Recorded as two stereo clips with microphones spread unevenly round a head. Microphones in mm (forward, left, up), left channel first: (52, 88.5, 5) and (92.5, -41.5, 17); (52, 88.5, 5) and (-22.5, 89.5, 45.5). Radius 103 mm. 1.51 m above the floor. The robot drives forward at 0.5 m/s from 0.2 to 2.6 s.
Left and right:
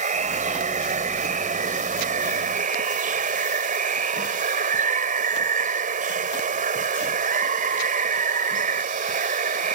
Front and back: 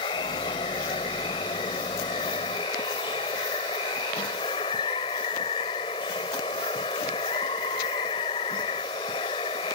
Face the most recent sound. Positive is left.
turn(degrees=-55)